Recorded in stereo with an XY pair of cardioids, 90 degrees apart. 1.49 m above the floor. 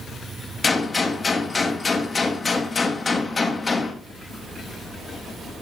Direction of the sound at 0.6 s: 35° left.